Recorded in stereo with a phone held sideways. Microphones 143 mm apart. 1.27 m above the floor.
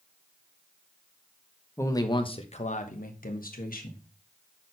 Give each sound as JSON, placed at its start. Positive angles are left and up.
{"t": 1.8, "sound": "a man speaking", "side_deg": 20, "distance_m": 1.1}